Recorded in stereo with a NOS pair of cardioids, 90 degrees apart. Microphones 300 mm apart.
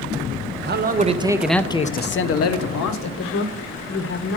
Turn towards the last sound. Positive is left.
turn(degrees=45)